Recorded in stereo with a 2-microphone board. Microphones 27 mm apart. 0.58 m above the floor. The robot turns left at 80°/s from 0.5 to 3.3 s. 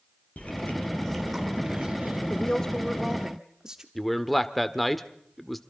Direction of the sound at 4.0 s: Centre (ahead or behind).